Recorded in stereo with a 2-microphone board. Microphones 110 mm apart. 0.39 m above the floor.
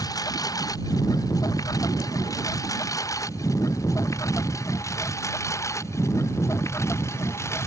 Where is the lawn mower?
35° left (ahead or behind); by 7.7 s 25° left (ahead or behind).